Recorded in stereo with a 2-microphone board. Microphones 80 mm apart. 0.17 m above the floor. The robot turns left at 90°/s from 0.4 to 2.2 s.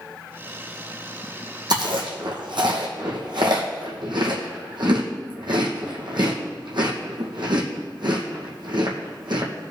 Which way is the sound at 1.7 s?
60° right (ahead or behind).